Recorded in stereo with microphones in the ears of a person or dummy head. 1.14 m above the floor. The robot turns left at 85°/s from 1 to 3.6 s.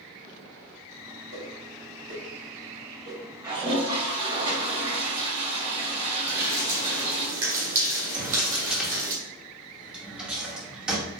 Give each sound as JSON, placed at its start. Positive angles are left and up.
{"t": 1.3, "sound": "a whoosh", "side_deg": -70, "distance_m": 1.5}
{"t": 3.4, "sound": "a toilet flushing", "side_deg": -10, "distance_m": 2.0}
{"t": 6.3, "sound": "dripping", "side_deg": -15, "distance_m": 1.7}
{"t": 8.1, "sound": "a drawer", "side_deg": -5, "distance_m": 1.0}